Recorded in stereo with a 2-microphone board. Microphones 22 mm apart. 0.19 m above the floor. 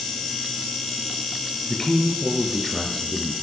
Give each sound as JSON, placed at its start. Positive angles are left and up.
{"t": 1.7, "sound": "a man speaking", "side_deg": 20, "distance_m": 2.5}